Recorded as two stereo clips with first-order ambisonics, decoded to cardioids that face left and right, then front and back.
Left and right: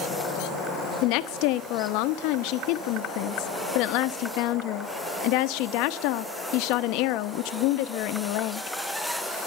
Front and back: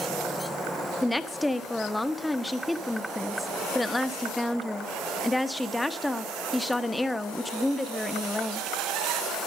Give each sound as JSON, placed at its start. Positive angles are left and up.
{"t": 1.0, "sound": "a woman speaking", "azimuth_deg": 85, "distance_m": 0.8}